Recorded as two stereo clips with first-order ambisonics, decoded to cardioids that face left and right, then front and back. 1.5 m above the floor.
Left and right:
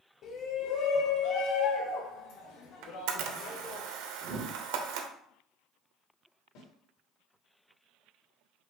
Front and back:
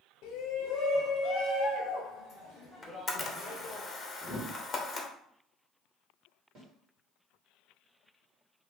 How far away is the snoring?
I don't hear snoring.